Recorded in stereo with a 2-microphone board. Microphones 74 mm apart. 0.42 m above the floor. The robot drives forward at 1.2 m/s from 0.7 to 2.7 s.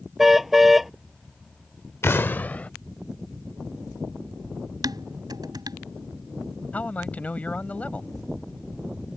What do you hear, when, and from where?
0.2 s a car horn: 5° right (ahead or behind)
2.0 s an explosion: 35° left (ahead or behind); by 2.7 s 20° left (ahead or behind)
4.8 s dishes clattering: 65° right (ahead or behind)
6.7 s a man speaking: 20° left (ahead or behind)